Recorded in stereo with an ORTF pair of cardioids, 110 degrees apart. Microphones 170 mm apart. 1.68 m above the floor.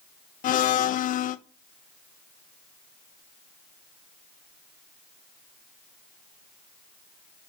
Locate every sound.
0.4 s a blender: 55° left, 0.6 m